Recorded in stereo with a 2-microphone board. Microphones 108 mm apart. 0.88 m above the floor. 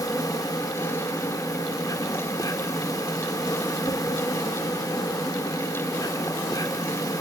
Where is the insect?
35° left (ahead or behind), 1.4 m.